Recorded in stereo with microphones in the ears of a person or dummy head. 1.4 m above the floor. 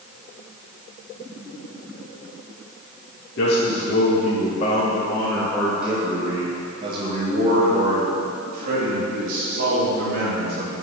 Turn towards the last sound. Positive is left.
turn(degrees=-55)  # may be behind; listen again after turning